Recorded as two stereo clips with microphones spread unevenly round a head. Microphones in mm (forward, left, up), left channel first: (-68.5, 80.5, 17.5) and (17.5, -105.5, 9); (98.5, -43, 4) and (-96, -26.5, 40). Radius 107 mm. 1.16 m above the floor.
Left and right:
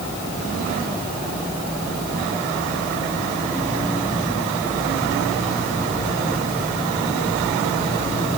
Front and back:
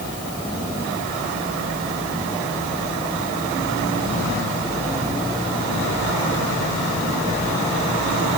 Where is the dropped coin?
No dropped coin in this recording.